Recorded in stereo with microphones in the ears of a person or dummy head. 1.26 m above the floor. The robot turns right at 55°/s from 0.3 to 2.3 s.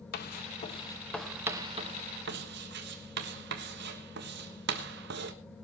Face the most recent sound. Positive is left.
turn(degrees=-55)  # may be behind; listen again after turning